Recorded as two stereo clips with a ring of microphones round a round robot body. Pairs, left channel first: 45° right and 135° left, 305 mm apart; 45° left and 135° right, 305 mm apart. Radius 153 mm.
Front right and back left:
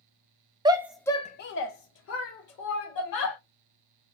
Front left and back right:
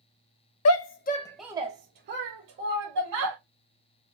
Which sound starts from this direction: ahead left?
A shout, at 0.7 s.